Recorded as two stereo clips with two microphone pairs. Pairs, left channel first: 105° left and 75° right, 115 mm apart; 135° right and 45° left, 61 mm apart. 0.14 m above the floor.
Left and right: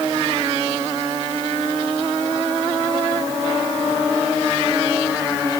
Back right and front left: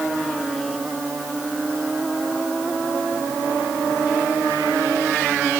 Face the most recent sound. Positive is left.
No sound to turn to.